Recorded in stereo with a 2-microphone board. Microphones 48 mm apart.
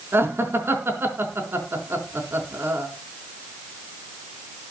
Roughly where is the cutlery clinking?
I don't hear cutlery clinking.